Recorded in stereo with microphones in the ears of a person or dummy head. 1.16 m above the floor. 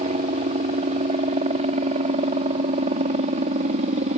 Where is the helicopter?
35° right (ahead or behind).